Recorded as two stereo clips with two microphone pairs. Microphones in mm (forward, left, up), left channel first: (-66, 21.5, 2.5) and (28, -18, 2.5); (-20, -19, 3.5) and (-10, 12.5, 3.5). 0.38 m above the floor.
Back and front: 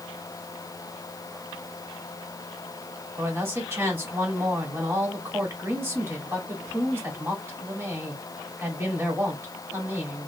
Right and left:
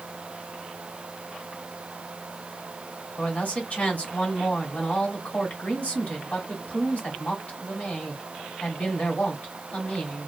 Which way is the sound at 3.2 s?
85° right.